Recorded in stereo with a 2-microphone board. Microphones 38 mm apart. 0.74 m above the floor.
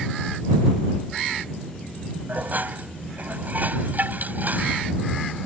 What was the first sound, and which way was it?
Dishes clattering, 50° right (ahead or behind).